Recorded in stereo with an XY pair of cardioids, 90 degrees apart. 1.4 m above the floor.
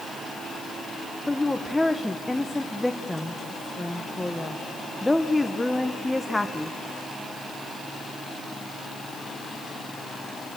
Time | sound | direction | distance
1.3 | a woman speaking | 10° left | 1.0 m